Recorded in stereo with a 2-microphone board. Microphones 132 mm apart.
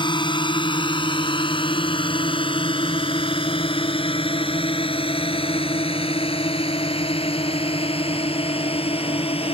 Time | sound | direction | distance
0.0 | a drone | 35° left (ahead or behind) | ?